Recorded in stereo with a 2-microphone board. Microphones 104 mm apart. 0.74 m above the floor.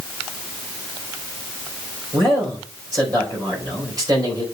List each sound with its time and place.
2.1 s a man speaking: 35° right (ahead or behind), 4.5 m